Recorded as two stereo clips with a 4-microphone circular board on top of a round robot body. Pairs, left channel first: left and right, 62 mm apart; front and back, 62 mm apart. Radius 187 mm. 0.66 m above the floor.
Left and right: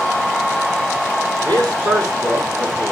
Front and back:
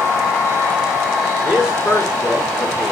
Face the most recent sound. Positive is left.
turn(degrees=-100)